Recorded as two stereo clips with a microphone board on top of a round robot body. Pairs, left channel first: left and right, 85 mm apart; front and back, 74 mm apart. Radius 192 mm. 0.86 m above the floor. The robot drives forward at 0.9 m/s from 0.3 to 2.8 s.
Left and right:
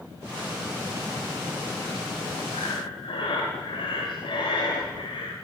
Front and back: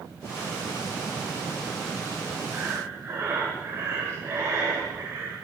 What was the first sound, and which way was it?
Breathing, 105° left.